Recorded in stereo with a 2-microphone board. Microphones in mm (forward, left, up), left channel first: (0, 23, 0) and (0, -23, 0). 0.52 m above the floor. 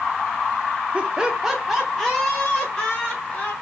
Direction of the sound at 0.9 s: 30° right (ahead or behind).